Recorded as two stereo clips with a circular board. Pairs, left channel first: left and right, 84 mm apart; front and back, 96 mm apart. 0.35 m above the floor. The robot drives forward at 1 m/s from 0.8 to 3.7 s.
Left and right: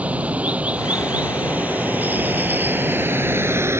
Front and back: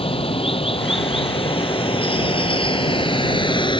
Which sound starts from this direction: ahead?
Running water, at 0.0 s.